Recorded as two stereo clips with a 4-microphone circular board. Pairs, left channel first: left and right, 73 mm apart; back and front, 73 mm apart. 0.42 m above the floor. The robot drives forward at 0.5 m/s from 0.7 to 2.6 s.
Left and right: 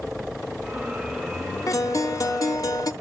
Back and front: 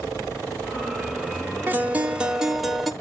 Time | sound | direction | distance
1.7 | a guitar | 60° left | 1.1 m